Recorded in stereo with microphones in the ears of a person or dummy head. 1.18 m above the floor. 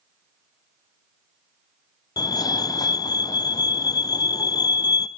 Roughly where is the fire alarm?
Centre.